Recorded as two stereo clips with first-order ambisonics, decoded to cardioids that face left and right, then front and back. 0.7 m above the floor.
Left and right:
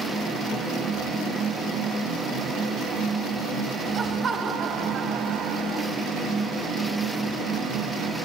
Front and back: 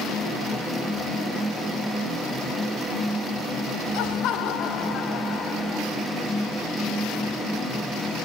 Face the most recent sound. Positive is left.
turn(degrees=-70)